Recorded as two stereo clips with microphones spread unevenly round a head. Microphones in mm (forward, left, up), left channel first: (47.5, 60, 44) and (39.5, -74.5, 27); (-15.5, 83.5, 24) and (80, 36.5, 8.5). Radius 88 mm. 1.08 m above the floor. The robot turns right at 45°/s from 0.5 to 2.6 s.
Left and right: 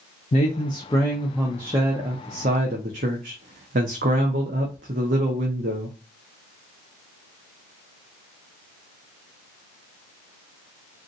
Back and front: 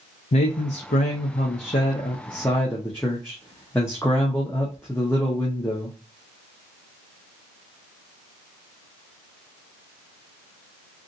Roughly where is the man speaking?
Behind left.